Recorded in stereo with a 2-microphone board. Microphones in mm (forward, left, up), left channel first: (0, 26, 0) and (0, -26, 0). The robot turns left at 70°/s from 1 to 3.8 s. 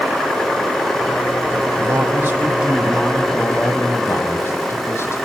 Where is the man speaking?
100° right, 5.5 m; by 5.2 s 120° left, 5.5 m.